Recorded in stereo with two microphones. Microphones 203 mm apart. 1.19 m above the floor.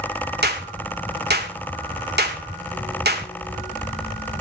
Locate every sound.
0.4 s a clap: 55° right (ahead or behind), 2 m